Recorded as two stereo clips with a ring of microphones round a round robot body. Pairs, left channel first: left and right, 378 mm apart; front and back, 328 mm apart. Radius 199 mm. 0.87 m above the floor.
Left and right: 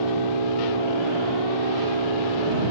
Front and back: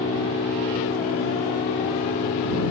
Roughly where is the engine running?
Right.